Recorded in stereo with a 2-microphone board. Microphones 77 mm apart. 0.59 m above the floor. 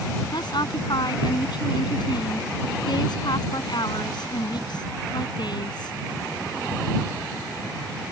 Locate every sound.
0.3 s a woman speaking: 70° left (ahead or behind)